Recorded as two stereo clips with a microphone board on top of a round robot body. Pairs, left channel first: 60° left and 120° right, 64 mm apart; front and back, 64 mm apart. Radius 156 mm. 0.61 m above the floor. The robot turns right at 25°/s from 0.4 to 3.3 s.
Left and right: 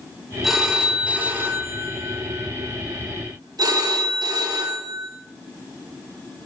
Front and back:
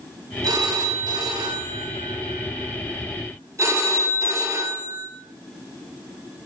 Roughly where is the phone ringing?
Behind left.